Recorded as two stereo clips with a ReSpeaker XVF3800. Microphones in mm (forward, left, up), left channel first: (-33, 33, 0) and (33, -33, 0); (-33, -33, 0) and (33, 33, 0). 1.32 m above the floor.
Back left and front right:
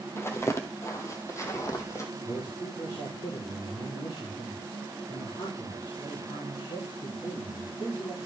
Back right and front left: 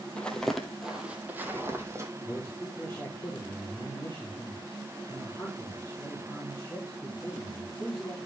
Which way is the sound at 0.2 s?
160° left.